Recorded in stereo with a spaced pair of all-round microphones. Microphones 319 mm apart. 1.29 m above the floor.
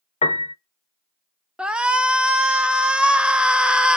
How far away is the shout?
About 0.5 m.